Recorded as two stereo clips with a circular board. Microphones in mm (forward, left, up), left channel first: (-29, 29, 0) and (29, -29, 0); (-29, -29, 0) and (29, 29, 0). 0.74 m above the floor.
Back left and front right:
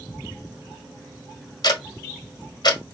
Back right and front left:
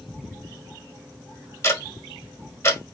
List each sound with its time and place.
1.6 s ticking: 170° left, 1.2 m